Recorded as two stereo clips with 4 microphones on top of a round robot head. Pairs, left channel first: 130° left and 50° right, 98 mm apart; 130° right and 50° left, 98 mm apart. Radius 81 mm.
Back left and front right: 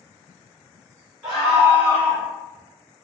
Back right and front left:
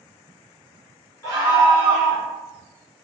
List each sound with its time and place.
1.2 s a scream: 135° right, 1.5 m; by 2.3 s 165° left, 1.4 m